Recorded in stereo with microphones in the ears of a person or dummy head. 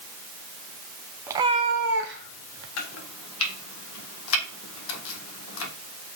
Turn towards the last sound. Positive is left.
turn(degrees=75)  # may be behind; listen again after turning